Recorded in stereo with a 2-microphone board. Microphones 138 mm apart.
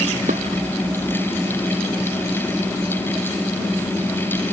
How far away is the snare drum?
No snare drum in this recording.